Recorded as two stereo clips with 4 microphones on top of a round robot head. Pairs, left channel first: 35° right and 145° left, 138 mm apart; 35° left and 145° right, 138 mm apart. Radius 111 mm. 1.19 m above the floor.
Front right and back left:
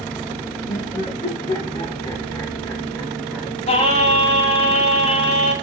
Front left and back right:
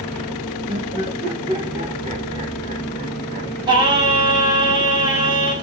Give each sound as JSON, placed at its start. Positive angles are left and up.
{"t": 0.7, "sound": "laughter", "azimuth_deg": -85, "distance_m": 2.5}
{"t": 3.7, "sound": "singing", "azimuth_deg": -85, "distance_m": 2.0}